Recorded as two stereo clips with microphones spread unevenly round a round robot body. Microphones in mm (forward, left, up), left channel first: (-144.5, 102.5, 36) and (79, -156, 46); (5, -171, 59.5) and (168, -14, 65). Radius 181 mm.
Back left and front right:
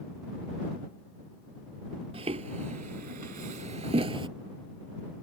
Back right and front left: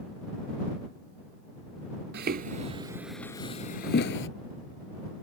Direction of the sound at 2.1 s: 20° left.